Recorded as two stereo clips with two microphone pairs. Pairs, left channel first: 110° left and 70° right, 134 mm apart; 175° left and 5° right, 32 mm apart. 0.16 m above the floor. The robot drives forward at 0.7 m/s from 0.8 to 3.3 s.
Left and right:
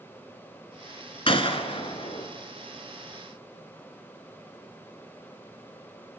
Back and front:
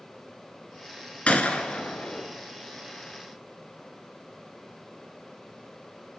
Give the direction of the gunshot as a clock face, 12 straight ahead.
7 o'clock.